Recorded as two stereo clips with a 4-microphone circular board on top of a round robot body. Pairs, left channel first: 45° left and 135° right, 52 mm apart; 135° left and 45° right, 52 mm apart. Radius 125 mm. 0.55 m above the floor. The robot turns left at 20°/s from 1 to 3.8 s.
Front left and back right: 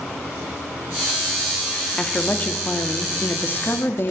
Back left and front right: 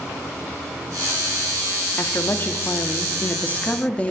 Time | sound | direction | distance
2.0 | a woman speaking | 110° left | 1.5 m